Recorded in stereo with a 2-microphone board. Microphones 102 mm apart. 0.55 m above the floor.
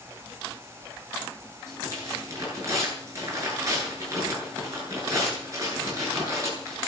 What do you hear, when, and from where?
1.7 s tearing paper: 30° right (ahead or behind), 9.5 m